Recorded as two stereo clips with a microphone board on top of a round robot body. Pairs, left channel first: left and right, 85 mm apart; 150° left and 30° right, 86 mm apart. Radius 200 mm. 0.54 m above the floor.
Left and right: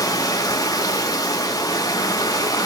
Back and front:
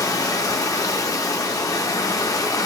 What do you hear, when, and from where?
0.0 s running water: 120° left, 0.9 m